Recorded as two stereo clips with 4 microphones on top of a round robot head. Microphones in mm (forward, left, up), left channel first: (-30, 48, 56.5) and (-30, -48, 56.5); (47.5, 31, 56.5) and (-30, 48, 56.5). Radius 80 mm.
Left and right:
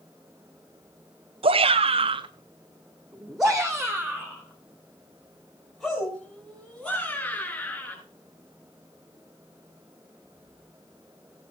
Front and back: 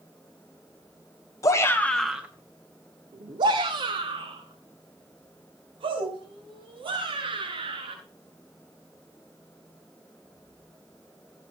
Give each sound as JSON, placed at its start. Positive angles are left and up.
{"t": 1.4, "sound": "a shout", "azimuth_deg": -65, "distance_m": 1.3}